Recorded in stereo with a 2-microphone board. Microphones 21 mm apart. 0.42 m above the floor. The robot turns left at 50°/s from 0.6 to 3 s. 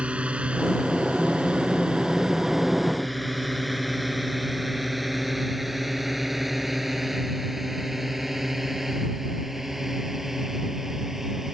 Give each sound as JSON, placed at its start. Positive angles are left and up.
{"t": 0.0, "sound": "a drone", "side_deg": -65}